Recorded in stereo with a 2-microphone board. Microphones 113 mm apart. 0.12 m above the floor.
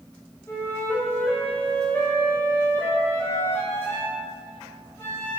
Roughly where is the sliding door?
I don't hear a sliding door.